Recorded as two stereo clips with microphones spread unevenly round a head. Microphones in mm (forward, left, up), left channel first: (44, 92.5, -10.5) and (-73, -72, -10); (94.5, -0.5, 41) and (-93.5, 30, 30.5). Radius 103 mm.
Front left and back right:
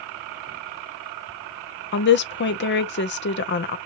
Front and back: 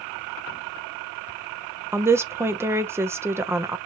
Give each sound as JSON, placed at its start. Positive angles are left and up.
{"t": 1.9, "sound": "a woman speaking", "azimuth_deg": 95, "distance_m": 0.6}